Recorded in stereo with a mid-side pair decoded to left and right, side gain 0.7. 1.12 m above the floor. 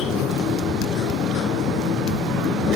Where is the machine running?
45° left.